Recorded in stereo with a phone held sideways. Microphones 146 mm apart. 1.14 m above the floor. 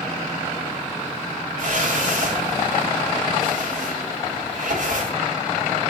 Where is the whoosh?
60° right (ahead or behind), 3 m.